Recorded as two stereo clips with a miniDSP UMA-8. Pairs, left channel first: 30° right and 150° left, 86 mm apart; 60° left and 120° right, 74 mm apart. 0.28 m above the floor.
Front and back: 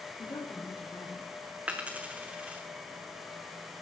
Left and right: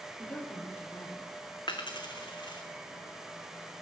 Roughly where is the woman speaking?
Ahead.